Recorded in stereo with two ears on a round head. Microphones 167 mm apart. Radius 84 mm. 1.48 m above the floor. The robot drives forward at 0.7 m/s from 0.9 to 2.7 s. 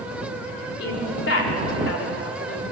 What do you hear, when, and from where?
0.8 s a woman speaking: 65° left (ahead or behind), 5 m; by 2.6 s 80° left, 4.5 m